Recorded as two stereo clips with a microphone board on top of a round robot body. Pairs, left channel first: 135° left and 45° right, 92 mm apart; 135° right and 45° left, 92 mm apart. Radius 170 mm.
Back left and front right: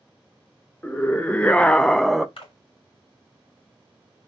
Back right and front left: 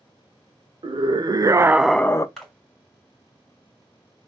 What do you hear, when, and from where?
0.8 s a scream: 65° left, 0.9 m; by 2.3 s 130° right, 0.6 m
2.4 s a splash: 140° left, 2.5 m